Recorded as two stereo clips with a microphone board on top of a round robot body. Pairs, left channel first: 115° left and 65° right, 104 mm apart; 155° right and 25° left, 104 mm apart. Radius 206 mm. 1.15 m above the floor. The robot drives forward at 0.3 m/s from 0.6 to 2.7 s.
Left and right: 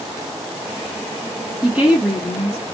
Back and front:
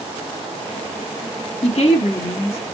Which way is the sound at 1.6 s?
150° right.